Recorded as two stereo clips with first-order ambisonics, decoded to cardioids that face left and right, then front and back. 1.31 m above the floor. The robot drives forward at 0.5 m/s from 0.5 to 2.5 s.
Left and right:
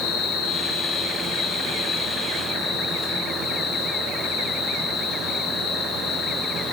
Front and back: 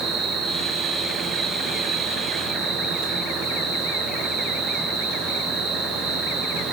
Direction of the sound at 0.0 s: 115° left.